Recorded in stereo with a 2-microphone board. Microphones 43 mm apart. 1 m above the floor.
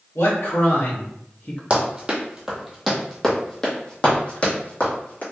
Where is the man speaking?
75° left (ahead or behind), 1.5 m; by 1.6 s 35° left (ahead or behind), 1.0 m.